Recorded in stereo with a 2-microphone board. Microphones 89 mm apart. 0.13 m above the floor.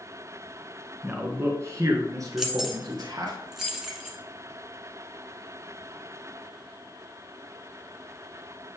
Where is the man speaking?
20° right (ahead or behind), 1.1 m; by 3.3 s 50° right (ahead or behind), 2 m.